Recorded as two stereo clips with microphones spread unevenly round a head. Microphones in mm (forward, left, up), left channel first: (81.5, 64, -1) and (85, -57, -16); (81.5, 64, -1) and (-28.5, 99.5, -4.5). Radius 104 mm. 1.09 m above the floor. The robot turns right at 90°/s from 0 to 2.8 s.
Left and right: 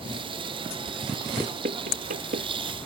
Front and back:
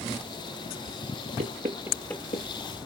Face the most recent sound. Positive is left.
turn(degrees=-35)